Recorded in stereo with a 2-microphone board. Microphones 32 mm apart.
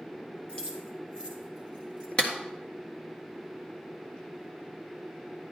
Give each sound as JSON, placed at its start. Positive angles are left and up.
{"t": 0.5, "sound": "keys jangling", "side_deg": 30, "distance_m": 1.8}
{"t": 2.2, "sound": "a clap", "side_deg": 30, "distance_m": 1.6}